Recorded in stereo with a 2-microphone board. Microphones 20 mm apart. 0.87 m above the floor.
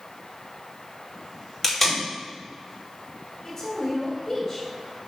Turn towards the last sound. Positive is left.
turn(degrees=20)  # may be behind; listen again after turning